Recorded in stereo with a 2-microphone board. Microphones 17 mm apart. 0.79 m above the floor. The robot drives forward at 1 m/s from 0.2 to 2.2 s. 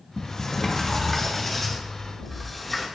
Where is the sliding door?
45° left (ahead or behind), 1.2 m; by 2.9 s 20° left (ahead or behind), 2.5 m.